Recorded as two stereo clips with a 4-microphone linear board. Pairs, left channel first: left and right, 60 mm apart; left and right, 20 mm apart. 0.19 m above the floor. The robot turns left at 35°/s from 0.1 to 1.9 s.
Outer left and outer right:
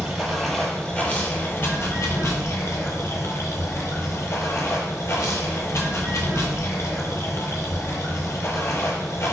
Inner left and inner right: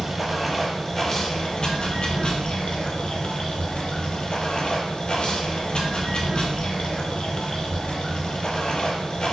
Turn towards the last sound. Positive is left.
turn(degrees=130)